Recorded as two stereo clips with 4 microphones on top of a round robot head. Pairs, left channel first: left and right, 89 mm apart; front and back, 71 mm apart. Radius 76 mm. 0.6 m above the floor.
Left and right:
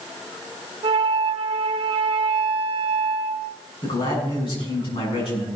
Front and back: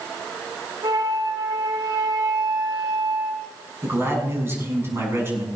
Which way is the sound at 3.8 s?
125° left.